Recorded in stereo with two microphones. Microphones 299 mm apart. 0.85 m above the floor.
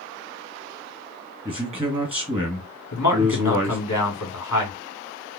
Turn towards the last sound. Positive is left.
turn(degrees=70)  # may be behind; listen again after turning